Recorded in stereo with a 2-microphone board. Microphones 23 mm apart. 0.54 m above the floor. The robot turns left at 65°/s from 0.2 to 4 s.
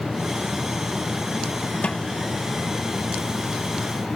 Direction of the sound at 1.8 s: 65° left (ahead or behind).